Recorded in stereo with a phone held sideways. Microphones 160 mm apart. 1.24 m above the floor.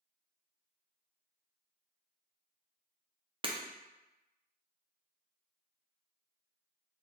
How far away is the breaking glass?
About 0.6 m.